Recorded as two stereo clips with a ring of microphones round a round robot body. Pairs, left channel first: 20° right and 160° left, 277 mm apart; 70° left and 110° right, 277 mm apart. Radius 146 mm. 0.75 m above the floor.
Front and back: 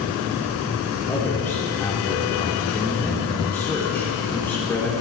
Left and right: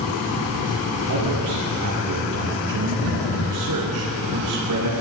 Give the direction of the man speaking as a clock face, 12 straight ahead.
4 o'clock.